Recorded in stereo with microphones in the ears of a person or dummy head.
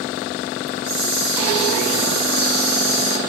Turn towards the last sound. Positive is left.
turn(degrees=-65)  # may be behind; listen again after turning